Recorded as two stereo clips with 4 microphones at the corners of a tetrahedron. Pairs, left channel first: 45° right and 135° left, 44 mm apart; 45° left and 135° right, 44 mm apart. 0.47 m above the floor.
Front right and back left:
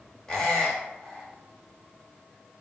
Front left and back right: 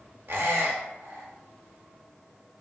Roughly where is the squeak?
Behind right.